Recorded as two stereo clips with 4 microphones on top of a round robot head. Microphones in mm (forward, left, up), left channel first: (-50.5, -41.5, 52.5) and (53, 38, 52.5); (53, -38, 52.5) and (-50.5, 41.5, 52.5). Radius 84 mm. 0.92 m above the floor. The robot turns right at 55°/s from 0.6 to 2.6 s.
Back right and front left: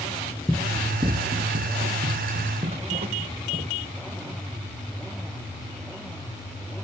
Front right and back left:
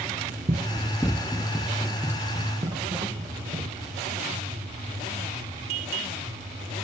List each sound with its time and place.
0.5 s running footsteps: 125° left, 1.0 m; by 4.4 s 85° left, 5.5 m